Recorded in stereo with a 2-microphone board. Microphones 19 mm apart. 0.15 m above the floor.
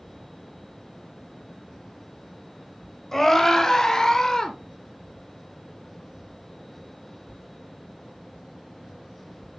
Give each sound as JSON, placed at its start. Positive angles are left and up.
{"t": 3.1, "sound": "a scream", "side_deg": 35, "distance_m": 1.7}